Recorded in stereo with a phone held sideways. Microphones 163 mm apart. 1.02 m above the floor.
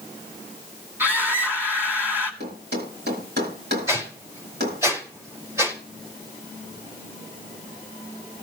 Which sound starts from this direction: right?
A thud, at 2.4 s.